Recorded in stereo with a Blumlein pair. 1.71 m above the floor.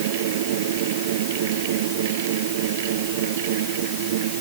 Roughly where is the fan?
Ahead right.